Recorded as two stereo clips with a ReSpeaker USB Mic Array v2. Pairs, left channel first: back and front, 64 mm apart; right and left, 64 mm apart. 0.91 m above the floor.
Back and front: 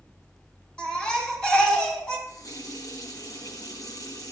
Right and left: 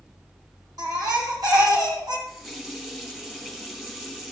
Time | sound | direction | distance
0.8 | a baby crying | 100° left | 3 m
2.3 | a running tap | 170° left | 3 m